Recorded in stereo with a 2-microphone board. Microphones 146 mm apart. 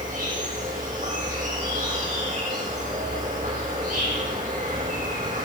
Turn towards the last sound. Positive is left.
turn(degrees=-75)  # may be behind; listen again after turning